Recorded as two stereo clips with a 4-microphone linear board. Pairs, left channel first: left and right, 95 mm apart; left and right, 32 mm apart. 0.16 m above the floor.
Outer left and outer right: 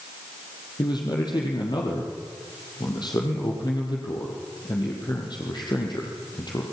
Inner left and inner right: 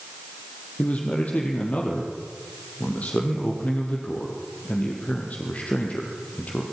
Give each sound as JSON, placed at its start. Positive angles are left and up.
{"t": 0.8, "sound": "a man speaking", "side_deg": 50, "distance_m": 4.5}